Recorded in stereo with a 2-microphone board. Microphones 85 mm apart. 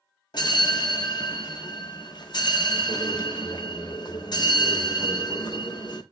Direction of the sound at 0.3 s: 55° left (ahead or behind).